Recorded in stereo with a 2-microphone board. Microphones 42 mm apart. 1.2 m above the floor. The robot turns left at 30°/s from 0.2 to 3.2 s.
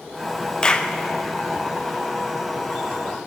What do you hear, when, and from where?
0.6 s a clap: 20° left (ahead or behind), 0.6 m; by 0.9 s 30° left (ahead or behind), 0.6 m